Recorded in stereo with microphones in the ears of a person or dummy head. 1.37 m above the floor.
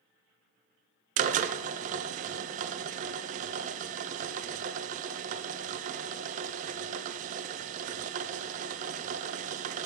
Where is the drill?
40° right (ahead or behind), 0.5 m.